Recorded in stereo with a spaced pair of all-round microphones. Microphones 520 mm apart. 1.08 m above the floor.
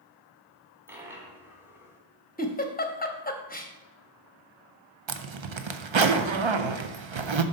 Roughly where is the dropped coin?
Centre.